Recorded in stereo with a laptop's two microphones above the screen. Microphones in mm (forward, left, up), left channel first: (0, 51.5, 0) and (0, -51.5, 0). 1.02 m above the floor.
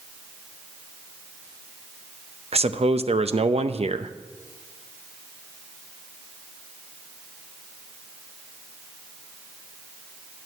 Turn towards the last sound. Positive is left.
turn(degrees=-75)  # may be behind; listen again after turning